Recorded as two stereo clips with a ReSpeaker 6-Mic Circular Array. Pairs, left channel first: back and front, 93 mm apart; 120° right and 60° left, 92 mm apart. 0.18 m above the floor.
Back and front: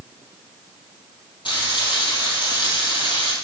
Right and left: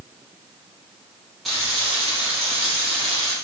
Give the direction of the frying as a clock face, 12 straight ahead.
7 o'clock.